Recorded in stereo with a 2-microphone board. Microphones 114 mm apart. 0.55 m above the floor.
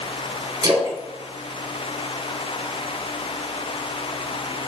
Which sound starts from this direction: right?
A splash, at 0.6 s.